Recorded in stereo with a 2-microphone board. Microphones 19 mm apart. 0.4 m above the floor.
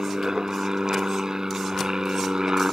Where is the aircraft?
40° right (ahead or behind).